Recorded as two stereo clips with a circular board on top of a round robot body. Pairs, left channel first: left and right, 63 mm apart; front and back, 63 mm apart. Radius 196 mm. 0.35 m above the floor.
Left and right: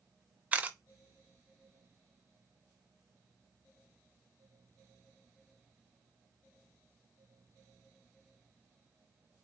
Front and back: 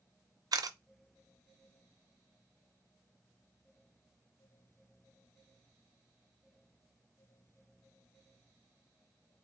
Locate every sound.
0.5 s a camera shutter: 160° right, 0.5 m